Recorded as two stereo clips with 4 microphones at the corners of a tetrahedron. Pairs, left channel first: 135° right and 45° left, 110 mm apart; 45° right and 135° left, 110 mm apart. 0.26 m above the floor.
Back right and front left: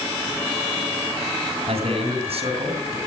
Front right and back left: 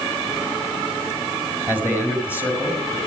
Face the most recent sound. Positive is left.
turn(degrees=20)